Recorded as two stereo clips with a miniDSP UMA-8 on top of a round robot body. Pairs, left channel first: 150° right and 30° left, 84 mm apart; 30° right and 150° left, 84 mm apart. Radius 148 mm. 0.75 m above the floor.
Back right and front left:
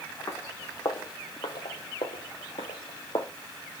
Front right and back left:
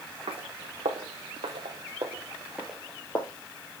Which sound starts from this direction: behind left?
Footsteps, at 0.3 s.